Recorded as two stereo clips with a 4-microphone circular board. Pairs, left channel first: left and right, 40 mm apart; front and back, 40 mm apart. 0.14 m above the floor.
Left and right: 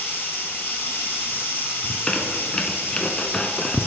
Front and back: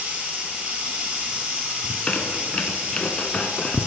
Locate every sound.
0.0 s running water: 120° left, 1.7 m
1.8 s a squeak: 40° left, 0.5 m